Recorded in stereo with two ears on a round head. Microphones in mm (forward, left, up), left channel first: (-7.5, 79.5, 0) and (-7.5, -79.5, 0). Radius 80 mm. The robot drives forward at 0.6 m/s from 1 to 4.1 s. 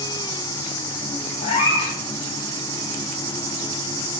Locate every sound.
1.4 s a cat meowing: 35° left (ahead or behind), 2.5 m; by 2.0 s 30° left (ahead or behind), 2.5 m